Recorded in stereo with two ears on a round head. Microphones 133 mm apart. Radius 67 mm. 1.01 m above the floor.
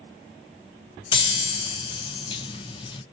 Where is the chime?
30° left (ahead or behind), 0.5 m.